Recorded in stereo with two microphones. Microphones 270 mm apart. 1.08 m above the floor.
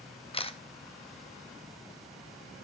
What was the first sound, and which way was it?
A camera shutter, 20° left (ahead or behind).